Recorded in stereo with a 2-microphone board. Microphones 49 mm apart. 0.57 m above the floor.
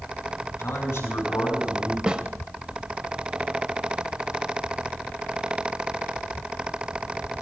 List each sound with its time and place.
0.6 s a man speaking: 80° left, 6.5 m
2.1 s a snare drum: 15° right (ahead or behind), 0.9 m